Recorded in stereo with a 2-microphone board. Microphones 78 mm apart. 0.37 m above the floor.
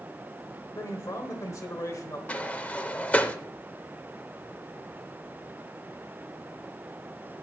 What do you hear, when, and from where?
0.8 s a man speaking: 45° left (ahead or behind), 1.2 m
2.3 s a sliding door: 15° left (ahead or behind), 0.6 m